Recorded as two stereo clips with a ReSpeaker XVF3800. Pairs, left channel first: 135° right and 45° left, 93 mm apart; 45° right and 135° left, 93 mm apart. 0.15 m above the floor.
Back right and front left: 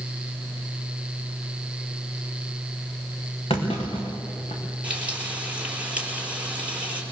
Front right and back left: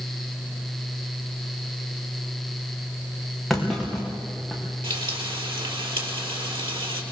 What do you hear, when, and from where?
3.5 s a clunk: 135° right, 5 m
4.8 s frying: 120° left, 4 m